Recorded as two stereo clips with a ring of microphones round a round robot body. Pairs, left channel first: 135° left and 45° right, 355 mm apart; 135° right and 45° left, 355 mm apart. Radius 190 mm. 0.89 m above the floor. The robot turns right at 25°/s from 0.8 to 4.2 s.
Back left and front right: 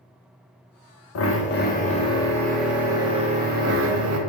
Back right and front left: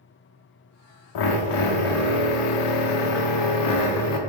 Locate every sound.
1.1 s a drill: 170° right, 0.5 m; by 4.2 s 95° right, 0.5 m